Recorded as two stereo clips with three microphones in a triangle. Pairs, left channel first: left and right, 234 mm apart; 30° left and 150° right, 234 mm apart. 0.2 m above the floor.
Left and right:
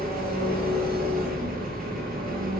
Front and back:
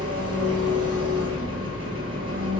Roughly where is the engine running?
Behind right.